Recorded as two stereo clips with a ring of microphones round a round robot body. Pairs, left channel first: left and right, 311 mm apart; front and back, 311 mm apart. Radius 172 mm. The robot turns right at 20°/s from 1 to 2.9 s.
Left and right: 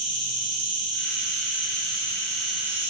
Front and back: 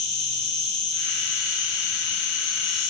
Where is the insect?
40° right, 0.8 m; by 2.9 s 5° right, 0.8 m.